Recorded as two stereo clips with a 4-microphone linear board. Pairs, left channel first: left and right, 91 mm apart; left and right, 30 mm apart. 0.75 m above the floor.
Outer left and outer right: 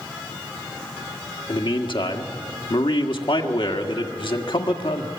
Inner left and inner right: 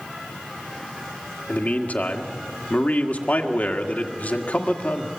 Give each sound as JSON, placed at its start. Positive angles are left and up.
{"t": 1.5, "sound": "a man speaking", "side_deg": 65, "distance_m": 1.7}